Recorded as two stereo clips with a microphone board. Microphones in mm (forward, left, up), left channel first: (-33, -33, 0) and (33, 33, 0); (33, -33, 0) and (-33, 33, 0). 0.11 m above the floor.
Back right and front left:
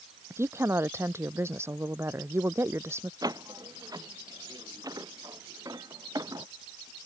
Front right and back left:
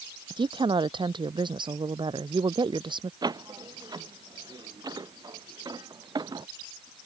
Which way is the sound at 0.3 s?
105° left.